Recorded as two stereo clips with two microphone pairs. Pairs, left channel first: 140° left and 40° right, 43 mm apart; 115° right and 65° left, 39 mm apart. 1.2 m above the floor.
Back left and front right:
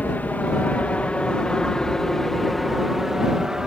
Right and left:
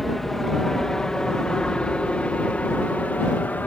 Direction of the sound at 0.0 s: 165° left.